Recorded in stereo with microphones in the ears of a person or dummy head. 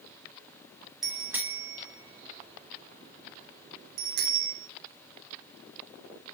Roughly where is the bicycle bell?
Centre.